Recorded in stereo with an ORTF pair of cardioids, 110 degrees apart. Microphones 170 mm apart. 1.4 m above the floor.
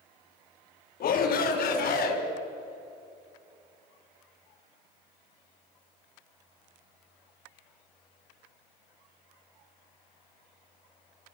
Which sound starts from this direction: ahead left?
A shout, at 1.0 s.